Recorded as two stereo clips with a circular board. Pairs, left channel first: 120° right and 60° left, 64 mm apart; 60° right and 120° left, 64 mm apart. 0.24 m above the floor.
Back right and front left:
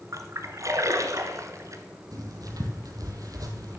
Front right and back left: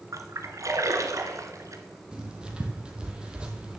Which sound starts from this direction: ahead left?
Writing, at 2.1 s.